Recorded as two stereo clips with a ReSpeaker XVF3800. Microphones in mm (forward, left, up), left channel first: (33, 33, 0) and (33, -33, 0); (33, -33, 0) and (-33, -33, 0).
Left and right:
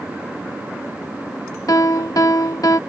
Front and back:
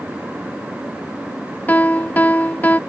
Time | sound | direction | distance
1.7 | a piano | 60° left | ?